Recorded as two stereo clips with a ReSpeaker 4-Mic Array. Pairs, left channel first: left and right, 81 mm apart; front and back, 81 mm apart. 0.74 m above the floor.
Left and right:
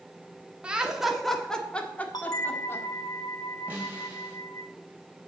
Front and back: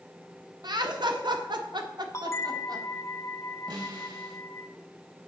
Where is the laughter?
165° right, 1.3 m; by 2.9 s 145° left, 1.9 m.